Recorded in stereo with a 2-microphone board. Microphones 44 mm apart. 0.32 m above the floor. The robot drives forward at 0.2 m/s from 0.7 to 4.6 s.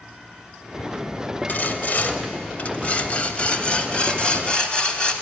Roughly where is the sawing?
Left.